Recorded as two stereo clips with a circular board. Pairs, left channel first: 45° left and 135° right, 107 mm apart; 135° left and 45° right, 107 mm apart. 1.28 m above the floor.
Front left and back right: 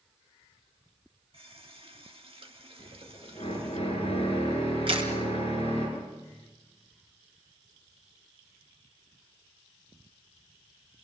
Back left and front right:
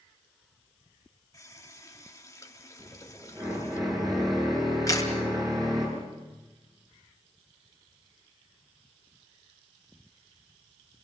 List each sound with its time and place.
1.3 s a running tap: 165° right, 1.7 m
2.8 s a drill: 10° left, 10 m
4.9 s a camera shutter: 170° right, 3.5 m